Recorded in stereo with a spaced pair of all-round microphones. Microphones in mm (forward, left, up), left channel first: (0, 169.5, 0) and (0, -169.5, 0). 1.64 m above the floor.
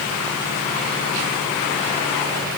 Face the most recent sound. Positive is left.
No sound to turn to.